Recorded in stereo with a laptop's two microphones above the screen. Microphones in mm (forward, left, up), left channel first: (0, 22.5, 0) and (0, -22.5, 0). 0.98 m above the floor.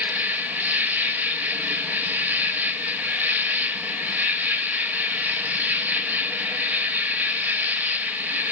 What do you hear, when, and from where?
0.0 s an insect: 40° right (ahead or behind), 1.2 m